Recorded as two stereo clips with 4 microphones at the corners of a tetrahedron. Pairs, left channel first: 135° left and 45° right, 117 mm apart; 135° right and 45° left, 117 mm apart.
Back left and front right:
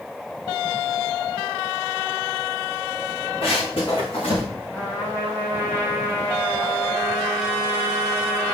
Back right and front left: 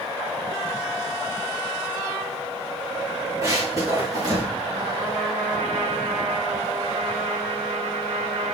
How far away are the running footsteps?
About 6 m.